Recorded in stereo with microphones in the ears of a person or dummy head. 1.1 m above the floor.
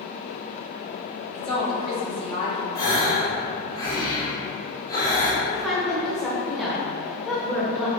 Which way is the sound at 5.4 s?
Centre (ahead or behind).